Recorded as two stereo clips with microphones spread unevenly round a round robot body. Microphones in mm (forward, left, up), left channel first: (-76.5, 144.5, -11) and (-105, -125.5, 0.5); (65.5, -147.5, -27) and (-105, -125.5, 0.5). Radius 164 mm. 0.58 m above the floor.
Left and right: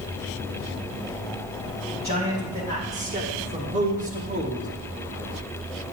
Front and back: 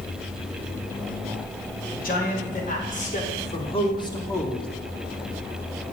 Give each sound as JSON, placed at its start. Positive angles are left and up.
{"t": 1.9, "sound": "a man speaking", "azimuth_deg": -25, "distance_m": 3.0}